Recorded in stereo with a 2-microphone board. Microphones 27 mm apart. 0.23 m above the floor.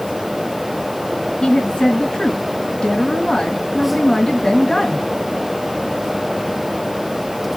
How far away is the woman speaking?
About 2 m.